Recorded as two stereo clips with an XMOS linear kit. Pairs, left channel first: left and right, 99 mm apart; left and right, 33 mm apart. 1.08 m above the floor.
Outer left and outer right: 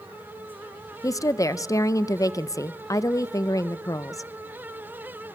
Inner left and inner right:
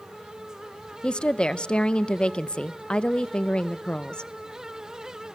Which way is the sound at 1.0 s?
35° left (ahead or behind).